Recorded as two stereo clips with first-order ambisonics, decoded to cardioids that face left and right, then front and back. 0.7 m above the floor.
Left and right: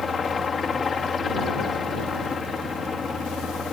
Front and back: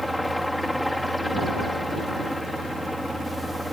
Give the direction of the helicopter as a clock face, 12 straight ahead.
9 o'clock.